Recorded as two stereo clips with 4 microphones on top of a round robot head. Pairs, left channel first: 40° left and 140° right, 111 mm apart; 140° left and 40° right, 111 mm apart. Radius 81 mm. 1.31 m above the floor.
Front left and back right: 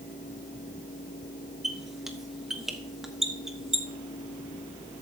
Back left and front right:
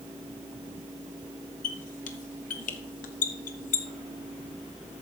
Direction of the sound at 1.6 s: 130° left.